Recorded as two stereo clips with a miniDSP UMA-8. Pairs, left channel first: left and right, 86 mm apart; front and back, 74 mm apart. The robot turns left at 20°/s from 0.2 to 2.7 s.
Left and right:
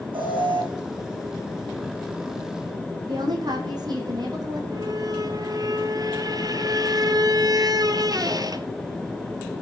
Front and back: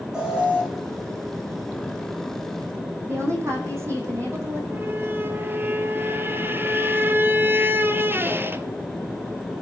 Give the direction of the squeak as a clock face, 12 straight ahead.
4 o'clock.